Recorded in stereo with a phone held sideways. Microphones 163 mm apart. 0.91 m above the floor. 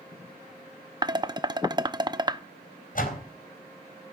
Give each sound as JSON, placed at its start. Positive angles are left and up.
{"t": 1.0, "sound": "dishes clattering", "side_deg": -25, "distance_m": 0.6}
{"t": 3.0, "sound": "a door slam", "side_deg": 55, "distance_m": 4.0}